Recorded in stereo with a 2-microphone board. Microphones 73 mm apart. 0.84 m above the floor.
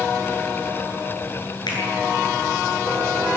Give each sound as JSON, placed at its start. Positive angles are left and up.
{"t": 1.7, "sound": "a finger snap", "side_deg": 80, "distance_m": 9.5}